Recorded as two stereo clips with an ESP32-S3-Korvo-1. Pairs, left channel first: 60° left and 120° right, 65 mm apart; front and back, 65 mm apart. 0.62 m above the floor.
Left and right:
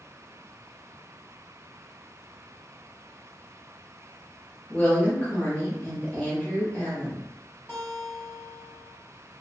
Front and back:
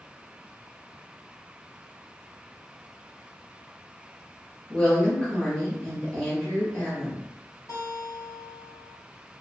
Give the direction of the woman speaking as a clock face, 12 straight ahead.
11 o'clock.